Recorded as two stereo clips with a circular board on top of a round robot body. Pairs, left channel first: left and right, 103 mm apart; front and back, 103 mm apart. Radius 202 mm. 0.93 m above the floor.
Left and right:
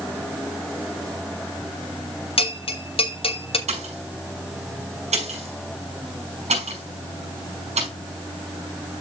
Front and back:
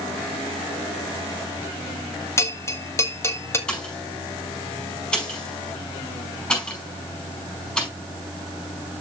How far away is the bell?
About 1.7 m.